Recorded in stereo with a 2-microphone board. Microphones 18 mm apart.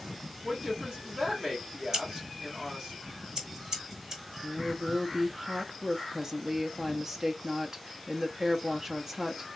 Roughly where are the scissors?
Right.